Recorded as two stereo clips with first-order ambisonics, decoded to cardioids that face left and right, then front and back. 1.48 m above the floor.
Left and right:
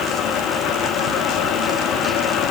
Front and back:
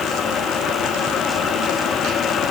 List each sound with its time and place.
Only background noise.